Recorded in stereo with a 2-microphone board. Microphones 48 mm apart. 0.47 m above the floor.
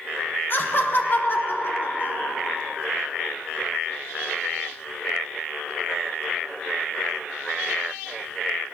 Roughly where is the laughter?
Left.